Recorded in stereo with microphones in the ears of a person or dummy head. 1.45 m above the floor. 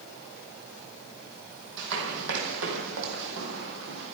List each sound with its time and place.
1.8 s running footsteps: 65° right (ahead or behind), 3.5 m; by 4.1 s 60° right (ahead or behind), 3.5 m